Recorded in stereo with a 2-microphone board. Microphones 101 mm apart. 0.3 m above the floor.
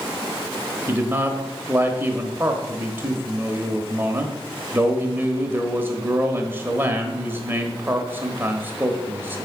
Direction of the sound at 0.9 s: 20° right (ahead or behind).